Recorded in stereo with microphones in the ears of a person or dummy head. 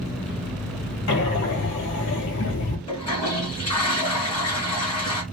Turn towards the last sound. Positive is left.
turn(degrees=20)  # may be behind; listen again after turning